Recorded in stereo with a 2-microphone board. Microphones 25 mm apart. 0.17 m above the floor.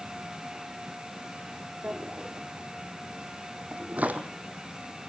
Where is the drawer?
85° right, 1.6 m.